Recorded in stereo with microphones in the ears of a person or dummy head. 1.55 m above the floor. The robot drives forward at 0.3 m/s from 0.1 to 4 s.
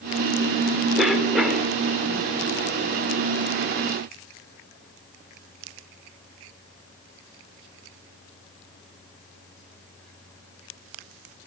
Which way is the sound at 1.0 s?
Centre (ahead or behind).